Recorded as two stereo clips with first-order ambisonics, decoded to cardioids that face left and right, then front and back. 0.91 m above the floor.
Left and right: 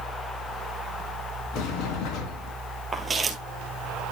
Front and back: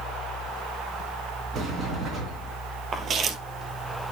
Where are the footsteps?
155° right, 1.0 m.